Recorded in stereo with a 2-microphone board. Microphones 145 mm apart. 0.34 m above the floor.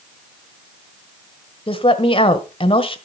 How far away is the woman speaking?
About 1.3 m.